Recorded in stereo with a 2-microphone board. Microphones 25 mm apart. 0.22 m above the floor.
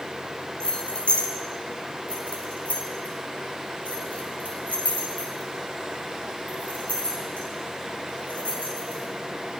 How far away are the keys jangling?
About 2.5 m.